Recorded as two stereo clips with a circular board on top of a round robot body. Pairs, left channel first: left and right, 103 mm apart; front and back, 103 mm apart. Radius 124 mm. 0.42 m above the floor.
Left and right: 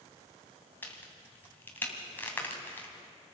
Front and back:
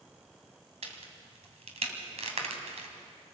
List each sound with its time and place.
0.8 s a crack: 165° left, 2.5 m